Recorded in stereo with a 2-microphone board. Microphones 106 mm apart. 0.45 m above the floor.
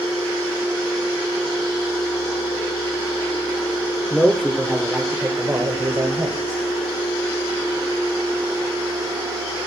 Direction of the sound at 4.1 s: 10° left (ahead or behind).